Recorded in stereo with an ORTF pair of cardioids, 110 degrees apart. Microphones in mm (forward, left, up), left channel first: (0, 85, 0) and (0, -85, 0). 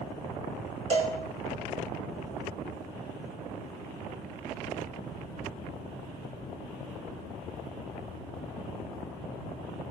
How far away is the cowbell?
About 3.5 m.